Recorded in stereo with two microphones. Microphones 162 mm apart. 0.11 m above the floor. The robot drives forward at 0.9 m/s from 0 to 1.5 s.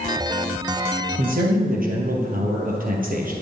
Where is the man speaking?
55° right (ahead or behind), 2 m; by 3.3 s 60° right (ahead or behind), 2 m.